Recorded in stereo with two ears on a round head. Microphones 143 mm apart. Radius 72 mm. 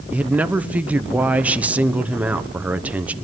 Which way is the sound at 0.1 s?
10° right (ahead or behind).